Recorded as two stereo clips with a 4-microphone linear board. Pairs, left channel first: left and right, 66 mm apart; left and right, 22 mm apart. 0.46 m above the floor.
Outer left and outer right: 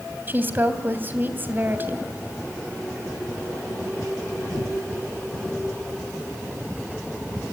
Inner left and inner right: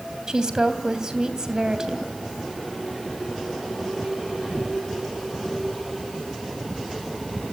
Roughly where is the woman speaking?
Right.